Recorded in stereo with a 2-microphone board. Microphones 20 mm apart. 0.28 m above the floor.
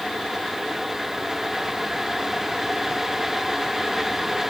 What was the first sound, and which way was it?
Only background noise.